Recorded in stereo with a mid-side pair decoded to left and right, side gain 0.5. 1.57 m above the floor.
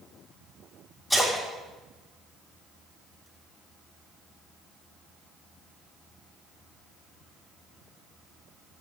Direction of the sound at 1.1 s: 5° right.